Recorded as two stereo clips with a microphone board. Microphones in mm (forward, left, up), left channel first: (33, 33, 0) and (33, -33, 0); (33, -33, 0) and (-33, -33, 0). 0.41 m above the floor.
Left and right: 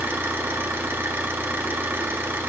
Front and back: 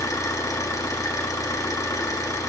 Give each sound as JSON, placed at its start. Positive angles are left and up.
{"t": 0.0, "sound": "an engine running", "azimuth_deg": -35, "distance_m": 1.3}